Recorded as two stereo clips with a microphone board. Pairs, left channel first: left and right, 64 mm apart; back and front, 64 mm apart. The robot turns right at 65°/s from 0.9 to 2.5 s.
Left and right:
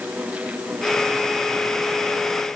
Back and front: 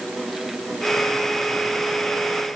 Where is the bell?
I don't hear a bell.